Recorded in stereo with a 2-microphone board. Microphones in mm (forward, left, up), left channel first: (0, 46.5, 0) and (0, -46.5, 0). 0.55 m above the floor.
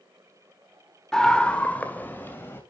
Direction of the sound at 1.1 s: 5° left (ahead or behind).